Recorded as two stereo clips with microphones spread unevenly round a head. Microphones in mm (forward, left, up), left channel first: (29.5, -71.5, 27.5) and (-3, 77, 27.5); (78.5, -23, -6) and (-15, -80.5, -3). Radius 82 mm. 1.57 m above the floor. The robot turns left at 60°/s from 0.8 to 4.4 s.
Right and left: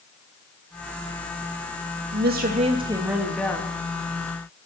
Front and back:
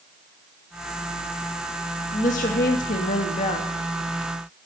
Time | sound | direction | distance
2.1 | a woman speaking | 85° left | 2.5 m